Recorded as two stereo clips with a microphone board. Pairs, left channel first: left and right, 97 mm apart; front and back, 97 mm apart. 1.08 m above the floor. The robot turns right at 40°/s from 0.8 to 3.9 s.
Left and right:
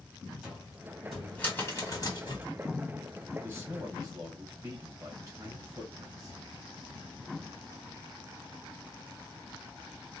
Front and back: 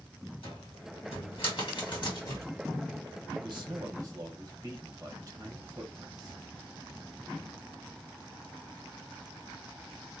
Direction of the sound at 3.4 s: 160° right.